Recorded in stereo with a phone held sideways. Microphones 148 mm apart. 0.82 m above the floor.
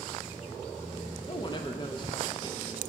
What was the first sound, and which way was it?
A woman speaking, 35° left (ahead or behind).